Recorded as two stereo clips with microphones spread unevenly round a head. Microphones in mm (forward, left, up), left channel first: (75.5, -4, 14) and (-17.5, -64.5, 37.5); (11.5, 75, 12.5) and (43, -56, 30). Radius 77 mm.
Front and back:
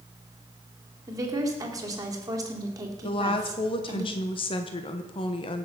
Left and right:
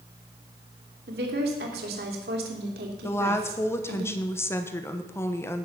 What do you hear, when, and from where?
1.1 s a woman speaking: 90° right, 3 m
3.0 s a woman speaking: 40° left, 1.1 m